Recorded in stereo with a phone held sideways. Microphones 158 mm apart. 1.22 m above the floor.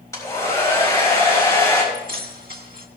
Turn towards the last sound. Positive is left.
turn(degrees=-70)  # may be behind; listen again after turning